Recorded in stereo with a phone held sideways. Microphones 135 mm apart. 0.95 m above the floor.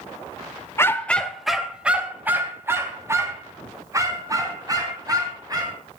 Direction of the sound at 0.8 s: 20° left (ahead or behind).